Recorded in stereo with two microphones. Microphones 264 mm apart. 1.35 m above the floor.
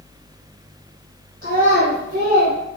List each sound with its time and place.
1.4 s a child speaking: 30° right (ahead or behind), 1.8 m; by 2.6 s 35° right (ahead or behind), 1.0 m